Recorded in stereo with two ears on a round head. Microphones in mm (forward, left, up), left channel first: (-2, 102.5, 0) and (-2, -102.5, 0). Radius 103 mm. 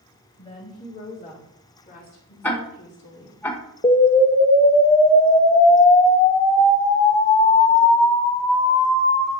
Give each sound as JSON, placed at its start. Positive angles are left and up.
{"t": 0.4, "sound": "a woman speaking", "side_deg": 25, "distance_m": 3.5}
{"t": 2.4, "sound": "ticking", "side_deg": 10, "distance_m": 1.2}
{"t": 3.8, "sound": "an explosion", "side_deg": 20, "distance_m": 0.8}